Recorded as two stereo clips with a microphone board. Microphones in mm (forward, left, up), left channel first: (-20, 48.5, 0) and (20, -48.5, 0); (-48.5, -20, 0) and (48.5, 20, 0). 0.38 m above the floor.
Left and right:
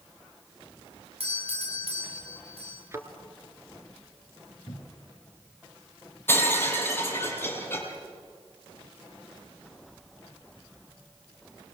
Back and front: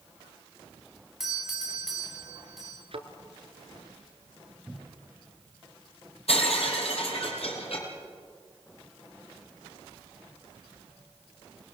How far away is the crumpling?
I don't hear crumpling.